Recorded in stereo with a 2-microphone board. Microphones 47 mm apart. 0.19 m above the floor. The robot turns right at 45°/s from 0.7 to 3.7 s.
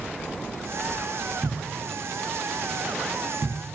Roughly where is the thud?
Centre.